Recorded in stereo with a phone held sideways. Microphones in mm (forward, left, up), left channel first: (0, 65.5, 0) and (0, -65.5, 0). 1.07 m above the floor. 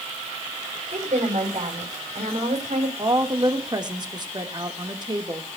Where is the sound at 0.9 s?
60° right (ahead or behind), 5.5 m.